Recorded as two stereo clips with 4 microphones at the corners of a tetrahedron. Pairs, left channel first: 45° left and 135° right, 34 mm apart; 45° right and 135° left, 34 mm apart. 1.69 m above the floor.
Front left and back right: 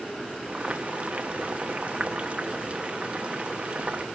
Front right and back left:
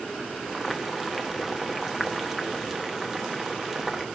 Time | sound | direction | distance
0.5 | boiling | 145° right | 1.2 m